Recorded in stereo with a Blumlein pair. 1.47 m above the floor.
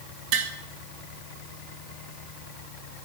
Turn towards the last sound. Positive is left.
turn(degrees=-40)